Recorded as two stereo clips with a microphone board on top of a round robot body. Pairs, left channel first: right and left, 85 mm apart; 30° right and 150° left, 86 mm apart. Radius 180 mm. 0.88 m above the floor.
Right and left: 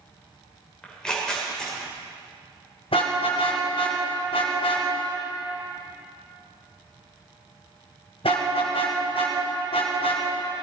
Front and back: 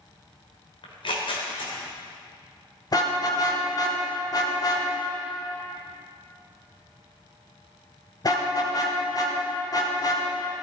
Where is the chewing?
I don't hear chewing.